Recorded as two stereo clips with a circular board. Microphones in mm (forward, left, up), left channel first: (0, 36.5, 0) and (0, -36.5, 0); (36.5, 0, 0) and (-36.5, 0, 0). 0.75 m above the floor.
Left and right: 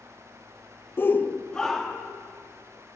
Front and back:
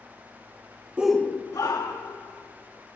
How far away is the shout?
About 0.5 m.